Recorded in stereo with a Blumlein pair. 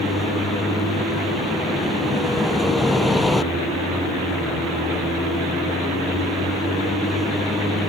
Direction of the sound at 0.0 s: 10° left.